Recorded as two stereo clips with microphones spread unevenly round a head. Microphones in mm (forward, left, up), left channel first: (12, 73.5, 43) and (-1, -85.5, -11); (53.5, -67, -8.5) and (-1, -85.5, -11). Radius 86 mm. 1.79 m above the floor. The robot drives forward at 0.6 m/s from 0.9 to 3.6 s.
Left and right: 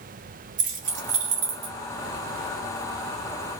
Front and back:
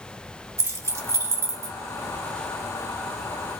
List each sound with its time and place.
0.6 s keys jangling: 145° right, 1.8 m; by 1.8 s 155° right, 2 m